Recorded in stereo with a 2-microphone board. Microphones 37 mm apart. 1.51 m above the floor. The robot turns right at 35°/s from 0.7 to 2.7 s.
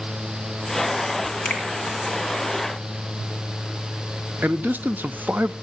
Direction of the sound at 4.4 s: 60° right (ahead or behind).